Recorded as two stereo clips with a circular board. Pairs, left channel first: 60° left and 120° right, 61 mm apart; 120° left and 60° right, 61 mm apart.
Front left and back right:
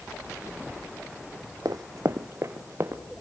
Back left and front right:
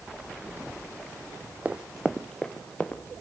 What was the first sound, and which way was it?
Running footsteps, 125° right.